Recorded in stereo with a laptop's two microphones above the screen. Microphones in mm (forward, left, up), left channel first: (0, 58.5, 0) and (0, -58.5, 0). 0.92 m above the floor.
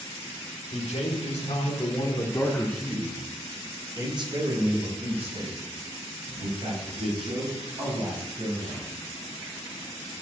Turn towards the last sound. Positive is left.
turn(degrees=-60)  # may be behind; listen again after turning